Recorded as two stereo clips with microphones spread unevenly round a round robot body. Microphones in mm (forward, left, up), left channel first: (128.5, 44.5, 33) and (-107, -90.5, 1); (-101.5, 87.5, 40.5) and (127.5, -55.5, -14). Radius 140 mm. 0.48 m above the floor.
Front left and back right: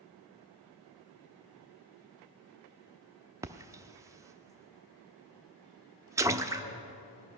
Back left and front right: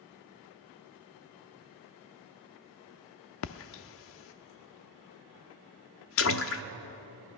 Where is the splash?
150° left, 0.5 m.